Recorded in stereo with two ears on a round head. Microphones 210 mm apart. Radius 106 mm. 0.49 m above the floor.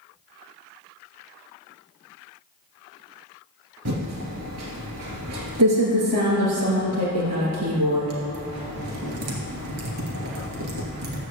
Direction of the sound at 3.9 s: 85° right.